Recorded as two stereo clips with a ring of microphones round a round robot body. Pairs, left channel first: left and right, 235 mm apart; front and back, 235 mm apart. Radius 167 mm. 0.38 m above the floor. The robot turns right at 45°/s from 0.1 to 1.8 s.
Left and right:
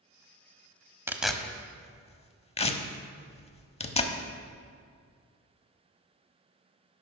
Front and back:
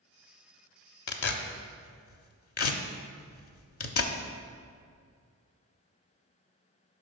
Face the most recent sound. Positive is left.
turn(degrees=25)